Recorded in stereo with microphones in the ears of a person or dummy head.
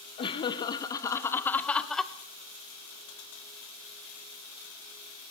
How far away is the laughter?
About 2 m.